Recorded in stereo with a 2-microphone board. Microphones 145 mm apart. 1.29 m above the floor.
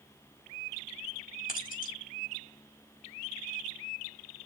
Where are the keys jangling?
70° left (ahead or behind), 4.5 m.